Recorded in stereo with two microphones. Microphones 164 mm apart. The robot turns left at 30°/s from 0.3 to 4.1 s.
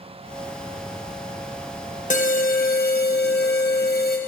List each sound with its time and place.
2.1 s an alarm: 130° left, 0.8 m; by 4.2 s 70° left, 0.8 m